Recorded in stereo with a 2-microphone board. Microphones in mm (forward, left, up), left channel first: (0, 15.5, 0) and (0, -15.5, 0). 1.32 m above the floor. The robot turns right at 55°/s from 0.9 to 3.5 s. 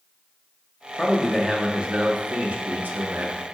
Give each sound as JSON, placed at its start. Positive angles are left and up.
{"t": 1.0, "sound": "a man speaking", "azimuth_deg": 170, "distance_m": 0.6}